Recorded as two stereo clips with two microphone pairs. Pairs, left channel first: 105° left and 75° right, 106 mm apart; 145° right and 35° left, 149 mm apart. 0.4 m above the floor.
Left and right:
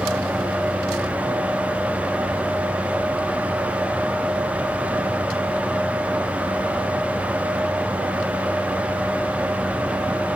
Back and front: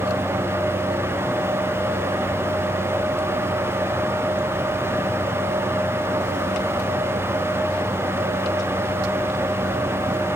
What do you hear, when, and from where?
Only background noise.